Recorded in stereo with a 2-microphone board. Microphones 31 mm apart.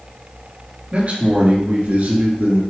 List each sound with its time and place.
0.9 s a man speaking: 45° right (ahead or behind), 3 m; by 2.6 s 70° right (ahead or behind), 3 m